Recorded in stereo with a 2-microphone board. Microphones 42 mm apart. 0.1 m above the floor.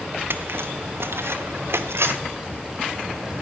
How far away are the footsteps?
About 1.3 m.